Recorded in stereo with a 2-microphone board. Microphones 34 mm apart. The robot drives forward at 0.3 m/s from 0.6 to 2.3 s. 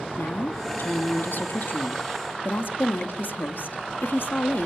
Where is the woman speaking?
70° left (ahead or behind), 1.7 m.